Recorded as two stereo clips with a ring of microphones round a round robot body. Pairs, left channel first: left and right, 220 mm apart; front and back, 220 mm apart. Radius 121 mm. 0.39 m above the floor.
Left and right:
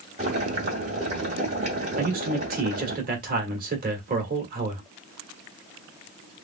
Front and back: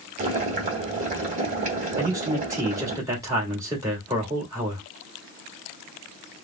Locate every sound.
0.2 s boiling: 140° right, 1.6 m
2.0 s a man speaking: 110° right, 1.7 m